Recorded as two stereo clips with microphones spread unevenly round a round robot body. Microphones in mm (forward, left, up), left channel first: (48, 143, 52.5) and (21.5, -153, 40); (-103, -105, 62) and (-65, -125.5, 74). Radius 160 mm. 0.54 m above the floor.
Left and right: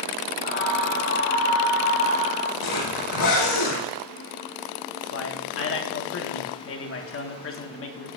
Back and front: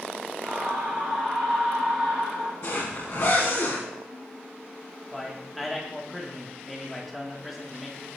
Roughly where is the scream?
Ahead left.